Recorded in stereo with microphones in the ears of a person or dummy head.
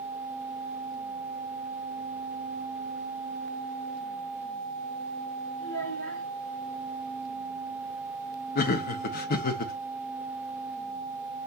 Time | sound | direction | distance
5.6 | a child speaking | 65° left (ahead or behind) | 1.5 m
8.6 | laughter | 50° left (ahead or behind) | 0.5 m